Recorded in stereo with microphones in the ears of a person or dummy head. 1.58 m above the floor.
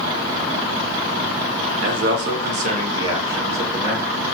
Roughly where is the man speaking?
Right.